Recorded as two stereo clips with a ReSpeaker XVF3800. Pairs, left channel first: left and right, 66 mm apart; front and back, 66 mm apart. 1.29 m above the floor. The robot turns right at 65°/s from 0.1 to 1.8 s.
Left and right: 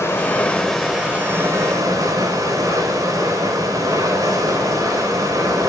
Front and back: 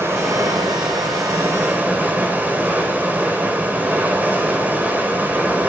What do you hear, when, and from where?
0.0 s running water: 135° left, 4 m; by 5.7 s 115° right, 4 m